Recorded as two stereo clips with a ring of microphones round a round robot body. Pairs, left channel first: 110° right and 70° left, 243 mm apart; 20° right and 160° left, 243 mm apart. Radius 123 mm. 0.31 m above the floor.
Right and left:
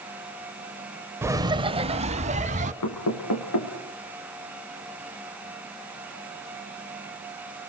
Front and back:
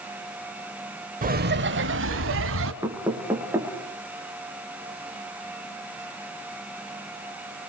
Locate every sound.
1.2 s laughter: 140° left, 0.9 m; by 2.7 s 125° left, 2.5 m
2.8 s knocking: 125° right, 4.5 m